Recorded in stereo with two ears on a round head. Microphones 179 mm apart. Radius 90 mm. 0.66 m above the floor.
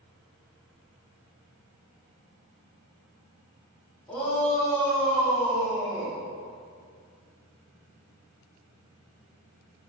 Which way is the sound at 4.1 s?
5° left (ahead or behind).